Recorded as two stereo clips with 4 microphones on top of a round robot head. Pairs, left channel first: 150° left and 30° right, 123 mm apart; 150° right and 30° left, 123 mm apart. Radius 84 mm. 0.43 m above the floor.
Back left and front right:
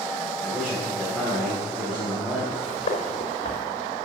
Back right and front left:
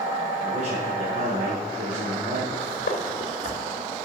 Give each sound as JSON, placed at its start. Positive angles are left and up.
{"t": 0.4, "sound": "a man speaking", "azimuth_deg": 60, "distance_m": 3.5}
{"t": 2.5, "sound": "footsteps", "azimuth_deg": -170, "distance_m": 3.5}